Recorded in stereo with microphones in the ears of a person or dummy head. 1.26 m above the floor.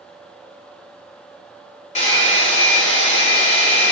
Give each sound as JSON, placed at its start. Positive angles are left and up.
{"t": 1.9, "sound": "a hair dryer", "side_deg": 40, "distance_m": 1.4}